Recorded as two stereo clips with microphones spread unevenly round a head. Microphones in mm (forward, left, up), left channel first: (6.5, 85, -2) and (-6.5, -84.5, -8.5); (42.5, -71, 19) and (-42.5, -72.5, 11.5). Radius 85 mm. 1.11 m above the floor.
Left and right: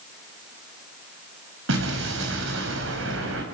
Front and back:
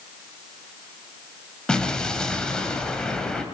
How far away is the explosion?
About 4.5 m.